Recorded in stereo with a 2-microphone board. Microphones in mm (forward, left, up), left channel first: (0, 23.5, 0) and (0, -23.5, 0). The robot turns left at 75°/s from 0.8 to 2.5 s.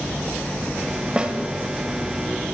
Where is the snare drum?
20° right (ahead or behind), 1.2 m; by 1.4 s 30° right (ahead or behind), 1.2 m.